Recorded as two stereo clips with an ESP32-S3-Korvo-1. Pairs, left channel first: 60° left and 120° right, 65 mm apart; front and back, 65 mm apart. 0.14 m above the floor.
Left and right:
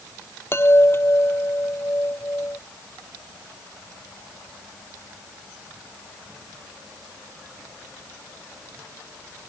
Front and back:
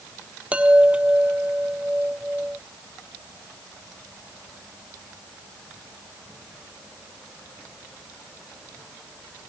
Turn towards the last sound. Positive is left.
turn(degrees=110)